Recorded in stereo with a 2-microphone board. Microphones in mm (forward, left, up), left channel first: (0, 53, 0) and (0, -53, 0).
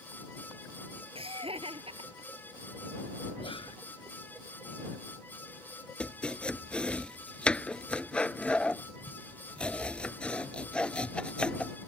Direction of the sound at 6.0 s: 10° left (ahead or behind).